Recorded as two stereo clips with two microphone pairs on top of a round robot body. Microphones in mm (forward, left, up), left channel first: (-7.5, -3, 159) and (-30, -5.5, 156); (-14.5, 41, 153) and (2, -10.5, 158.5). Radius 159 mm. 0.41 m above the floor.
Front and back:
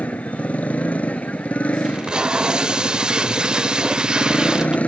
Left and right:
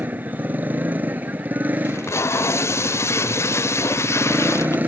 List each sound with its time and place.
0.0 s a motorcycle: 10° right
1.9 s tape being pulled: 135° left